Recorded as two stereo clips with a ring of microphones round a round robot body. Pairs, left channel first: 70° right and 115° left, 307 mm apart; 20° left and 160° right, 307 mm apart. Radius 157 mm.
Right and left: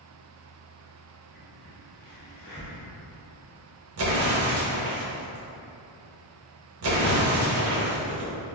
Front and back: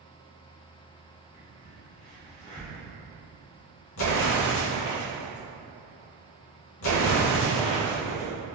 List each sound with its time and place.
1.3 s a crack: 45° right, 1.6 m
4.0 s an explosion: 70° left, 0.8 m